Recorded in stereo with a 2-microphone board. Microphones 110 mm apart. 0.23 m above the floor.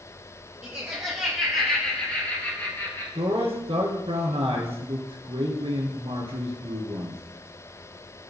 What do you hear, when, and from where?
0.6 s laughter: 20° right (ahead or behind), 4 m; by 3.0 s 30° left (ahead or behind), 4 m
3.1 s a man speaking: 65° right (ahead or behind), 3.5 m